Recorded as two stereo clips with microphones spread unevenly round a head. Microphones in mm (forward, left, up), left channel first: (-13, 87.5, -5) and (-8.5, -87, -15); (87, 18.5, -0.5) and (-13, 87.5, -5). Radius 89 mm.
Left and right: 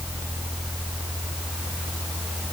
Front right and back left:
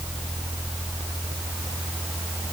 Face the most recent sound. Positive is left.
No sound to turn to.